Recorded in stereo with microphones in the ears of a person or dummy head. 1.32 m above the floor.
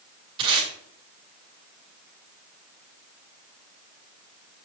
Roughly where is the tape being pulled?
Right.